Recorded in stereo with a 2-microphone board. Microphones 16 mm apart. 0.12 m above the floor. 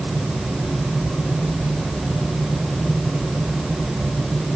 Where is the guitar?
I don't hear a guitar.